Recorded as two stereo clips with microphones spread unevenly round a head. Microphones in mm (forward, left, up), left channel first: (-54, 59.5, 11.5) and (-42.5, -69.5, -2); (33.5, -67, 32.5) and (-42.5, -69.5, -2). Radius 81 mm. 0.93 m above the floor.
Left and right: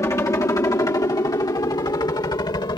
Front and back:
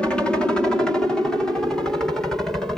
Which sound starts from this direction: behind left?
A helicopter, at 0.0 s.